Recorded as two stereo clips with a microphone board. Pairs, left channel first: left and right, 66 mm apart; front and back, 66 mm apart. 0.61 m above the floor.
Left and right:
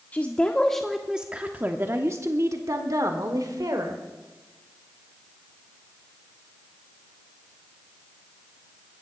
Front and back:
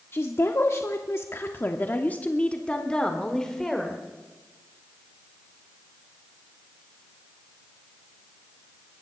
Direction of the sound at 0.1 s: 35° left.